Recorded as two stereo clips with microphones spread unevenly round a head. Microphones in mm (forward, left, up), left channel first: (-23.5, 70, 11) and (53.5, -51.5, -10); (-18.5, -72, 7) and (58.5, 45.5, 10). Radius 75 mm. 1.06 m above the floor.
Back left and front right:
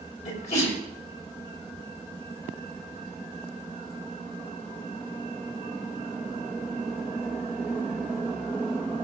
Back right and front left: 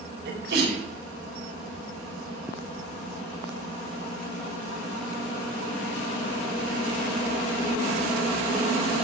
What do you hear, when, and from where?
0.2 s a sneeze: 80° left, 6 m